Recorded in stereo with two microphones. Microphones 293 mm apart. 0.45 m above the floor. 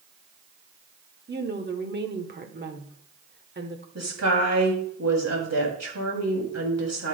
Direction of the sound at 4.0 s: 60° right (ahead or behind).